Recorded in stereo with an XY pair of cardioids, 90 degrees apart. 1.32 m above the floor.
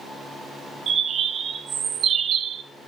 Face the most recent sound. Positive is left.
turn(degrees=-70)